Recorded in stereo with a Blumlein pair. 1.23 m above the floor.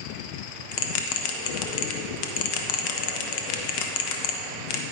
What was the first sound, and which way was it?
A bell, 45° left.